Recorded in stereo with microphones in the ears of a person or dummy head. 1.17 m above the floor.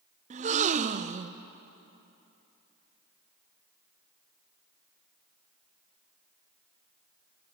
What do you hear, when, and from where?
0.3 s a gasp: 35° right (ahead or behind), 0.6 m